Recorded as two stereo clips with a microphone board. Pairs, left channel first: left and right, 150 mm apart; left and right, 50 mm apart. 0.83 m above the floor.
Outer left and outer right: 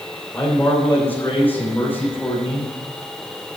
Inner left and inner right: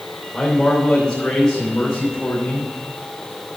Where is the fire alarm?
No fire alarm in this recording.